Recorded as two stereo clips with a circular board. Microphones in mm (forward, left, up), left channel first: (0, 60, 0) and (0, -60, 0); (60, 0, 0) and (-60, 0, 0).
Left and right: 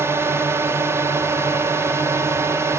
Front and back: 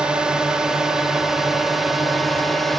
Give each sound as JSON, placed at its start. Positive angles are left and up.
{"t": 0.0, "sound": "a drone", "azimuth_deg": -110}